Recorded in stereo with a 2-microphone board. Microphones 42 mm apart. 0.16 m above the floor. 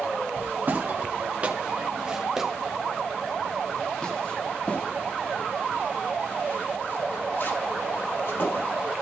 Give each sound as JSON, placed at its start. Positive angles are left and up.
{"t": 0.4, "sound": "footsteps", "side_deg": -45, "distance_m": 2.5}